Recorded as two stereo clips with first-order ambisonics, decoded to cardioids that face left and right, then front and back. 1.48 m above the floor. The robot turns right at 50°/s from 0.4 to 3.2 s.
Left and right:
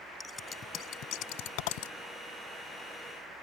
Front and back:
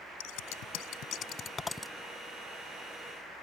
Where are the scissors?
15° left; by 1.9 s 90° left.